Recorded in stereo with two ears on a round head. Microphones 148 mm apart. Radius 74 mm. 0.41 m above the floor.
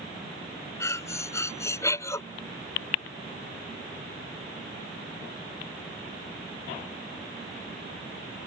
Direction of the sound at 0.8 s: 20° left (ahead or behind).